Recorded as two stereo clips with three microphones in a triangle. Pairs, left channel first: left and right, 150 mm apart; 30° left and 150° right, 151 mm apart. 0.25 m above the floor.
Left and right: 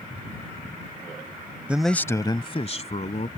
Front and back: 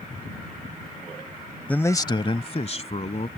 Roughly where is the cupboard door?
No cupboard door in this recording.